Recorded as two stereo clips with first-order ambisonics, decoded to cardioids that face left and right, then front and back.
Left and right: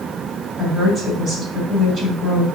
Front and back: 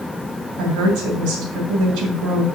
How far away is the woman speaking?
About 3 m.